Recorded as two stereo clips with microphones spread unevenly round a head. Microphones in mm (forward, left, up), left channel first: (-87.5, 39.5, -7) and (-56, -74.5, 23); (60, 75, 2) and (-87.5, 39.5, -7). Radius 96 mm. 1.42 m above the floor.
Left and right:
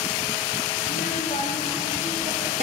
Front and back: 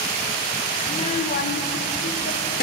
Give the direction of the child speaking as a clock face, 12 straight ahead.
10 o'clock.